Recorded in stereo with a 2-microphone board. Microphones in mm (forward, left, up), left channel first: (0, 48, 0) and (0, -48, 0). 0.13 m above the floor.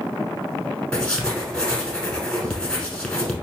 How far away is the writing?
About 1.0 m.